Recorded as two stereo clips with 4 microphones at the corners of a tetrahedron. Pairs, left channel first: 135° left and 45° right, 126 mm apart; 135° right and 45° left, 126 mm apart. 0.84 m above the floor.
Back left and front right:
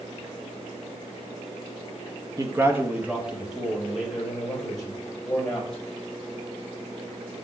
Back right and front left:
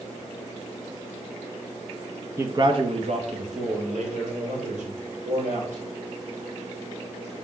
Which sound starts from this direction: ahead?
A man speaking, at 2.4 s.